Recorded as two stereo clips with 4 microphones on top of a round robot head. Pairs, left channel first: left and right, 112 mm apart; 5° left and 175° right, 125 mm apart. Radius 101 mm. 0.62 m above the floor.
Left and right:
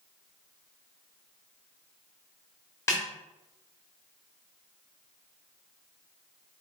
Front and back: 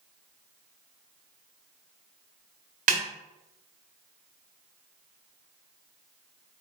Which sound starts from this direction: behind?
A snare drum, at 2.9 s.